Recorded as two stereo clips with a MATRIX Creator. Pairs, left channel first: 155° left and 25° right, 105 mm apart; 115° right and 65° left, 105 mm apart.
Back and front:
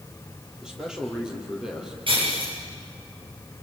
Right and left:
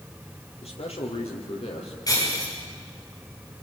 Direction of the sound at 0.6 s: 105° right.